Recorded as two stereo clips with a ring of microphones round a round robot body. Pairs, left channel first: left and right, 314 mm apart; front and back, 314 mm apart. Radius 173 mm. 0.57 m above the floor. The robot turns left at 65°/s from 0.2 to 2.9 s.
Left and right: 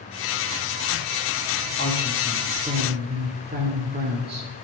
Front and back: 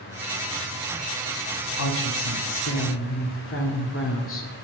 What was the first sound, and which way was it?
A woman speaking, 35° left.